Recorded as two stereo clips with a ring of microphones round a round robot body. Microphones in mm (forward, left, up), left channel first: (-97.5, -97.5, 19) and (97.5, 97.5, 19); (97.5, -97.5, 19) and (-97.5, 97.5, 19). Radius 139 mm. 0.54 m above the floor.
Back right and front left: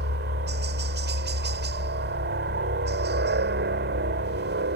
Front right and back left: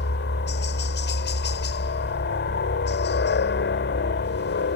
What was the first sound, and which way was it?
A helicopter, straight ahead.